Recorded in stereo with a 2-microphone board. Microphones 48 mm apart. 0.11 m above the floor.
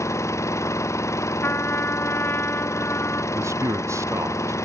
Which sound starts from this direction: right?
A man speaking, at 3.3 s.